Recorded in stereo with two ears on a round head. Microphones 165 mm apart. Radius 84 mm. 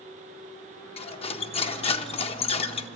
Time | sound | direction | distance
1.0 | cutlery clinking | 30° left (ahead or behind) | 0.7 m